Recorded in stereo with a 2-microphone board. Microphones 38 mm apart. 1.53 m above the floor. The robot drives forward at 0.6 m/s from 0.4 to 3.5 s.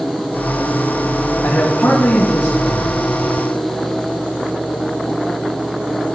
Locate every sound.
1.4 s a man speaking: 70° left (ahead or behind), 1.7 m; by 3.0 s 80° left, 1.6 m